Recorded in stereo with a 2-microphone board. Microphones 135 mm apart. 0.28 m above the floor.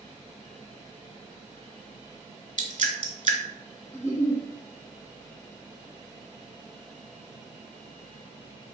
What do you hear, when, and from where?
2.6 s dripping: 70° right (ahead or behind), 0.5 m
3.9 s a giggle: 20° left (ahead or behind), 1.3 m